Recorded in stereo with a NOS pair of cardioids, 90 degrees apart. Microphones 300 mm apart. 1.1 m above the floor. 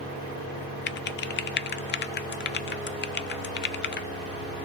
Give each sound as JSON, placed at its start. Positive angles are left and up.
{"t": 0.9, "sound": "typing on a keyboard", "azimuth_deg": 35, "distance_m": 0.6}